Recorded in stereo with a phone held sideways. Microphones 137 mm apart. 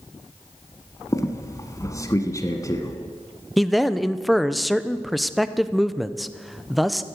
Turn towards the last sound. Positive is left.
turn(degrees=0)  # may be behind; listen again after turning